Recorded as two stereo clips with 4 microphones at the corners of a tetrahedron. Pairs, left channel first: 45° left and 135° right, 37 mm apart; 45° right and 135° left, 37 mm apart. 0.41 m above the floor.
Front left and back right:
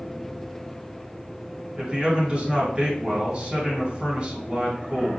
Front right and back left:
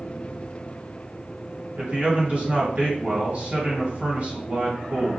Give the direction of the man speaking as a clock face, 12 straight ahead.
6 o'clock.